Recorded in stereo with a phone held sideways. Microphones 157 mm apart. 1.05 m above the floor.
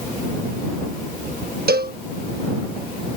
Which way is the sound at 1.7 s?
80° right.